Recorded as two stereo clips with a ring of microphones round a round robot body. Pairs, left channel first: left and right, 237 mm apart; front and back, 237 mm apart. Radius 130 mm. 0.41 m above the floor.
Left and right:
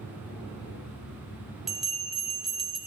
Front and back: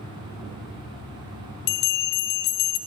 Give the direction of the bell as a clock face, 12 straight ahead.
12 o'clock.